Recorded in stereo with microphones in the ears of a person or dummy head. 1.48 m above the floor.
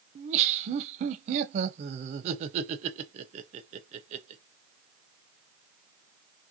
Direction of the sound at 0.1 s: 40° right (ahead or behind).